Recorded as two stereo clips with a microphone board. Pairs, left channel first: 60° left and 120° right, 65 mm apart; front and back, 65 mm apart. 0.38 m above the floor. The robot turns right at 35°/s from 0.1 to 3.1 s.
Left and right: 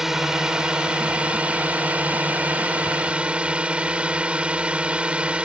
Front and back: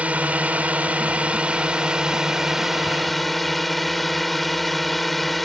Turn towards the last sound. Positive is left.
turn(degrees=-85)